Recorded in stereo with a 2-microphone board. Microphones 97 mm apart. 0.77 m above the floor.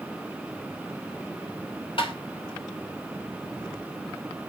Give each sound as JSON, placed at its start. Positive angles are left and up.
{"t": 2.0, "sound": "tapping", "side_deg": 65, "distance_m": 3.0}